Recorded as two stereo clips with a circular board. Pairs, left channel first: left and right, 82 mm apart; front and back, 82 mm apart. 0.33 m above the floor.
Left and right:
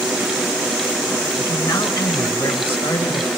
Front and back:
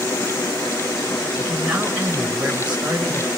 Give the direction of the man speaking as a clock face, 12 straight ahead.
9 o'clock.